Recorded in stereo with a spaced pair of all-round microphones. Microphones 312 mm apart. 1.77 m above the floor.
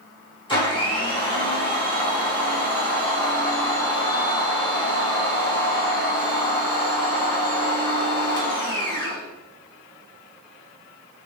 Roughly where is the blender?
Centre.